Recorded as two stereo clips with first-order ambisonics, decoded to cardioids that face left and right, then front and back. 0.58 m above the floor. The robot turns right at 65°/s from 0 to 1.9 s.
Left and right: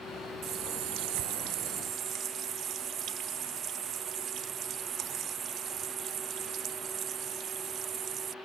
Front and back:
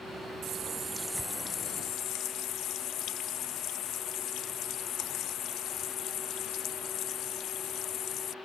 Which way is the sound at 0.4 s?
135° right.